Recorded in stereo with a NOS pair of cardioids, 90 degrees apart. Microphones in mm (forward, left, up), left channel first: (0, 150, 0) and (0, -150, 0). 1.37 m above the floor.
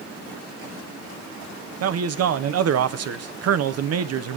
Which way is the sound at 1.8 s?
55° right.